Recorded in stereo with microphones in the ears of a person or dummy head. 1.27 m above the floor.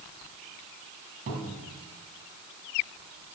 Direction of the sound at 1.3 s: 40° right (ahead or behind).